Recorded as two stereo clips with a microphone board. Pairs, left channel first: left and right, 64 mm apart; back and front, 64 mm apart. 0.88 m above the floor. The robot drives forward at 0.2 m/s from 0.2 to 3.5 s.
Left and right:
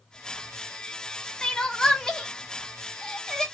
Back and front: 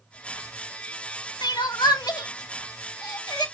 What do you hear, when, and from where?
1.4 s crying: 170° left, 0.8 m; by 3.5 s 175° left, 1.2 m